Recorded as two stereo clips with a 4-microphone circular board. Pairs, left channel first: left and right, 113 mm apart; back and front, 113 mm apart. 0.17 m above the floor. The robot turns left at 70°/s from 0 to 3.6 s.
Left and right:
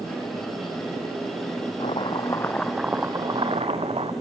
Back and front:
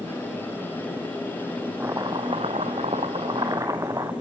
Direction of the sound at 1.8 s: 65° left.